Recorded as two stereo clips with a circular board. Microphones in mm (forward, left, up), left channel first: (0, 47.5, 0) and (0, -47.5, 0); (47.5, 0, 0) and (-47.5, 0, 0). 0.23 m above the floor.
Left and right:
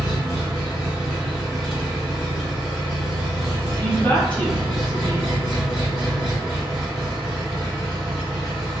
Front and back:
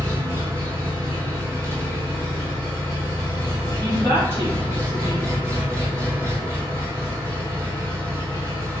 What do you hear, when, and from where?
0.0 s an engine running: 175° left, 1.4 m
3.8 s a woman speaking: 145° left, 1.2 m